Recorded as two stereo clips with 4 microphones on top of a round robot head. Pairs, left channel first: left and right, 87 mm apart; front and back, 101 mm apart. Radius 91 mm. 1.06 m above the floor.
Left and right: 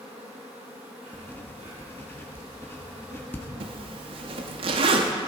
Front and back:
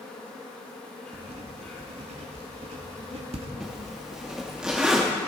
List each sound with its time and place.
0.0 s an insect: 80° right, 4 m
1.1 s writing: 155° left, 1.2 m
3.6 s a zipper: 95° right, 0.7 m